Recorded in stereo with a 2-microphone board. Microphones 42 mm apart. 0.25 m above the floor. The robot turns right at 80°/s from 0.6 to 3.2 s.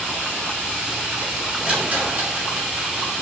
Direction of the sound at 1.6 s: 20° right (ahead or behind).